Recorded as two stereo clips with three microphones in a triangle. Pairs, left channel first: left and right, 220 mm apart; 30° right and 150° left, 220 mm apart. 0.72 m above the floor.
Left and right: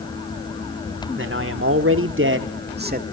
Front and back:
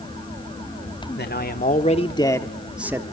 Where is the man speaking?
65° right, 1.7 m; by 3.0 s 135° right, 1.4 m.